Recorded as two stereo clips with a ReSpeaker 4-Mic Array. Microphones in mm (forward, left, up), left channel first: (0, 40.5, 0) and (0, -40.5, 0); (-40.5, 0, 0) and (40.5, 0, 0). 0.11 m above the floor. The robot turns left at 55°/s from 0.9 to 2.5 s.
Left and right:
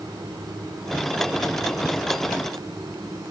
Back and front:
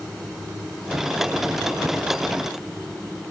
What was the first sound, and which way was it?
Only background noise.